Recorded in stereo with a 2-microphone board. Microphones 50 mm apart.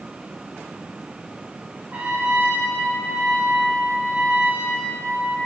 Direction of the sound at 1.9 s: 40° right (ahead or behind).